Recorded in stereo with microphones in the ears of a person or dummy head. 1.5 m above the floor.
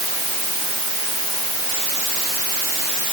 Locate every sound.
Only background noise.